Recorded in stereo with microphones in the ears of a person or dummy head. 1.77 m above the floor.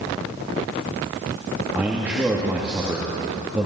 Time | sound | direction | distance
1.7 | a man speaking | 10° right (ahead or behind) | 2.5 m